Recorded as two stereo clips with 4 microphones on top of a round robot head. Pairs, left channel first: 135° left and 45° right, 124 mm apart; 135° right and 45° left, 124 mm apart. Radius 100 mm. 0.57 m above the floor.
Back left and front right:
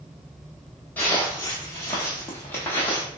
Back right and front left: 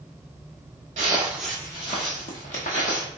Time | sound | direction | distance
1.0 | footsteps | 60° left | 0.6 m